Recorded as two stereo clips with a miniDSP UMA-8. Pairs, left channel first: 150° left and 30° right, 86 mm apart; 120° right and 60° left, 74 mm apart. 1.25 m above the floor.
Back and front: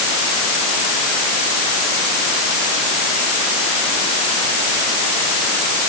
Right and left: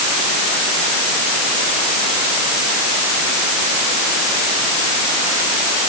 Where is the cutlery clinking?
No cutlery clinking in this recording.